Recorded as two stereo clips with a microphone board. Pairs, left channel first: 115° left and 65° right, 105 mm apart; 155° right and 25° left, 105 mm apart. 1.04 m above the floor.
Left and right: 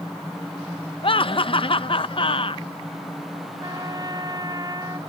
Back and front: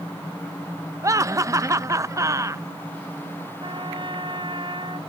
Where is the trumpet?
15° right.